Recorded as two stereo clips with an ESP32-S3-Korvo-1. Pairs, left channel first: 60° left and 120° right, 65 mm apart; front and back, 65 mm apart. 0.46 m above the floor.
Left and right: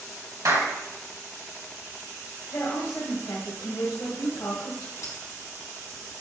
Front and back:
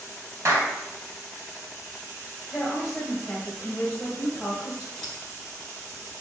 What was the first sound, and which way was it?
A clap, 135° right.